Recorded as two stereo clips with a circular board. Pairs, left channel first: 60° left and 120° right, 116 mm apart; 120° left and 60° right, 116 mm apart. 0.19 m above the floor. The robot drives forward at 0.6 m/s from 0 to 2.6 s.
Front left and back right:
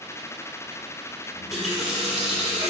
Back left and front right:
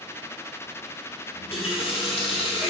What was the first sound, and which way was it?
A running tap, 150° left.